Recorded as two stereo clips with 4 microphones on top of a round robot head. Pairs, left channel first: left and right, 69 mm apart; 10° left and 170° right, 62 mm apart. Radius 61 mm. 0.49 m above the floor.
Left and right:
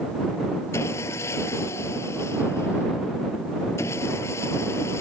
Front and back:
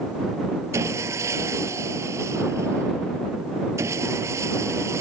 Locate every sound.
0.7 s sawing: 150° left